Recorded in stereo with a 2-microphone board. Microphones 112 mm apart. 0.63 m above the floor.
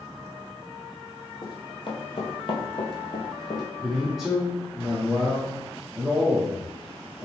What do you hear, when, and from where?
1.4 s running footsteps: 45° left (ahead or behind), 1.1 m; by 3.6 s 40° left (ahead or behind), 1.2 m
3.8 s a man speaking: centre (ahead or behind), 0.7 m